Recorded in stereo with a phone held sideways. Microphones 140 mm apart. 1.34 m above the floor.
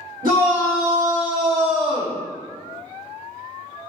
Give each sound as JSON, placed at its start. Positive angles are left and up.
{"t": 0.2, "sound": "a shout", "side_deg": -80, "distance_m": 1.1}